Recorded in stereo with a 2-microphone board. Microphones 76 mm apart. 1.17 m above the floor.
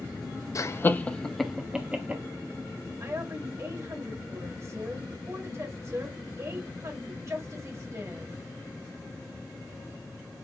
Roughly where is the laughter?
Left.